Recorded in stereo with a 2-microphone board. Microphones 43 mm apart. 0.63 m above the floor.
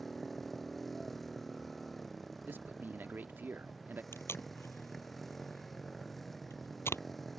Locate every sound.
0.0 s a motorcycle: 5° left (ahead or behind)
2.5 s a man speaking: 55° right (ahead or behind)
4.1 s tape being pulled: 75° left (ahead or behind)